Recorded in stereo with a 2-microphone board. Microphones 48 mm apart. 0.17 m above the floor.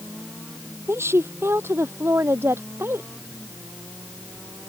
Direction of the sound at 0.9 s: 60° right (ahead or behind).